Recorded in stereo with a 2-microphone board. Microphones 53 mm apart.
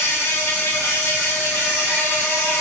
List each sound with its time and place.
0.0 s an insect: 65° left (ahead or behind), 1.9 m